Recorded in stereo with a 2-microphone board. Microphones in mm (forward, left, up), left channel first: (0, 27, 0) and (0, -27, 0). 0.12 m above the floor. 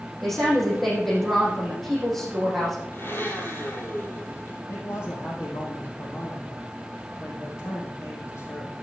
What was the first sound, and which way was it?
A woman speaking, 5° left (ahead or behind).